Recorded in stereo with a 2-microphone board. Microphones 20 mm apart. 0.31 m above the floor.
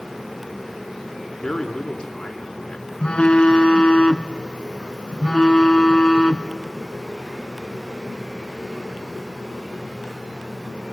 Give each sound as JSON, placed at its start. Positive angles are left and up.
{"t": 1.4, "sound": "a man speaking", "side_deg": 45, "distance_m": 4.0}
{"t": 3.0, "sound": "a phone buzzing", "side_deg": 60, "distance_m": 1.2}